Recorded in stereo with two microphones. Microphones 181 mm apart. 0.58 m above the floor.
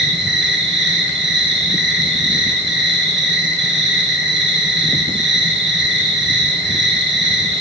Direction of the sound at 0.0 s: 75° right (ahead or behind).